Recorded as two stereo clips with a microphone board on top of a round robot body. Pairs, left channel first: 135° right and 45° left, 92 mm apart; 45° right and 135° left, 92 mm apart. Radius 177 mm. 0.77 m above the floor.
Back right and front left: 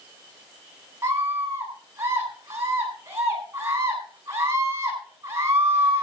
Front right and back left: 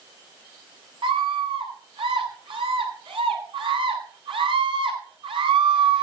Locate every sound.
1.0 s a scream: 105° left, 8.5 m